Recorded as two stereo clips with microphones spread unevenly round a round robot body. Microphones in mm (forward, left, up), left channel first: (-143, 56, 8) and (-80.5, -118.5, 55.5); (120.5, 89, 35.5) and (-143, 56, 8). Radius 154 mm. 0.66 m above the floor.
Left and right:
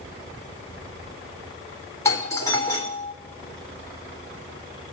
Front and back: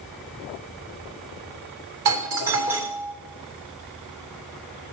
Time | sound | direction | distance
2.0 | a doorbell | 175° left | 3.5 m